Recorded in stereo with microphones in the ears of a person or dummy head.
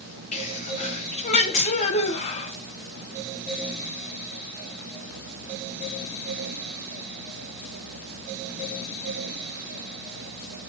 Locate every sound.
0.3 s a sneeze: 40° left (ahead or behind), 1.2 m